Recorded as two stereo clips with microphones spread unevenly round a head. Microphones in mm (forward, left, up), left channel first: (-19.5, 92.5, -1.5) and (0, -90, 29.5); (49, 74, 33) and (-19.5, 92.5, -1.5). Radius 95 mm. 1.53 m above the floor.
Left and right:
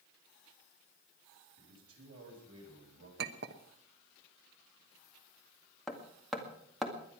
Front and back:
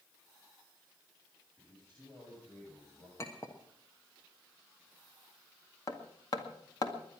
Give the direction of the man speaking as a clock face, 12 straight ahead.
3 o'clock.